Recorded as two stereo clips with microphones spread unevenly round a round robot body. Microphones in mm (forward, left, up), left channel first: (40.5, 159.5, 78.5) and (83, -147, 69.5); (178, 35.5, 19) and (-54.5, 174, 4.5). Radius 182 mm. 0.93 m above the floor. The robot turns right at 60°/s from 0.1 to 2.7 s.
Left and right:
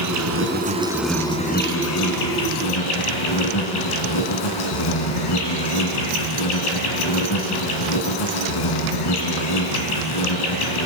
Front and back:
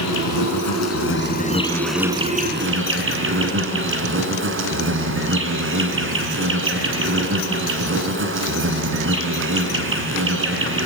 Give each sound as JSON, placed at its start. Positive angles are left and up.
{"t": 0.0, "sound": "an insect", "azimuth_deg": -50, "distance_m": 3.5}